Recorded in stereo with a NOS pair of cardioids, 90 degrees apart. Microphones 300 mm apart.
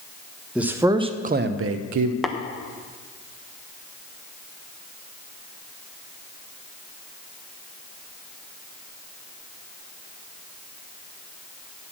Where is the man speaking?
5° right, 1.2 m; by 2.1 s 80° right, 0.8 m.